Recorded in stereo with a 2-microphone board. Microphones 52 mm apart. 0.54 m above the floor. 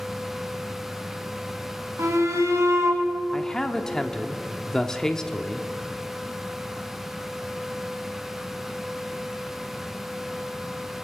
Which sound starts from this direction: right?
A shout, at 2.0 s.